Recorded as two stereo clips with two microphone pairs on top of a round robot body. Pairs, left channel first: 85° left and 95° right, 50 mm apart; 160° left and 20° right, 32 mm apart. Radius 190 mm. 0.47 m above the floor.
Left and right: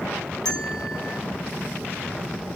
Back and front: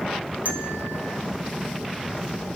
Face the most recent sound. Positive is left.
turn(degrees=10)